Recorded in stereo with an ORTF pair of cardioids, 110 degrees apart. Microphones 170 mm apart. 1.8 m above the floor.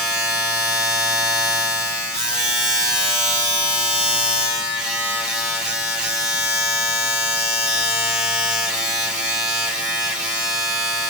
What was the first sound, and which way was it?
A machine running, 5° right.